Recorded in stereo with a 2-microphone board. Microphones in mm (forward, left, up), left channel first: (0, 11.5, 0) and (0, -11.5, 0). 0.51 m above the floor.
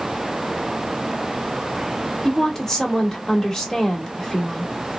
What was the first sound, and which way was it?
A woman speaking, 20° left (ahead or behind).